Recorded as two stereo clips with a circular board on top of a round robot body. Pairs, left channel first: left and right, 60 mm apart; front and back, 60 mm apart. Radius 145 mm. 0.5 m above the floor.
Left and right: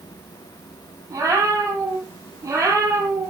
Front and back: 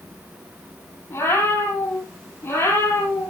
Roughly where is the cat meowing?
Ahead right.